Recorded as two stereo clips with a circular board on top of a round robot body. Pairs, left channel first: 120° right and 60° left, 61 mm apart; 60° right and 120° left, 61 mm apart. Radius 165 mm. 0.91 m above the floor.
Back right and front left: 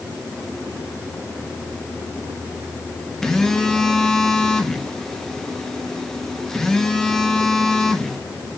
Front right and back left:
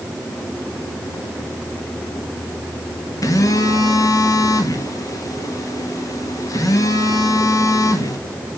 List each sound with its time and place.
3.2 s a phone buzzing: 40° right, 1.9 m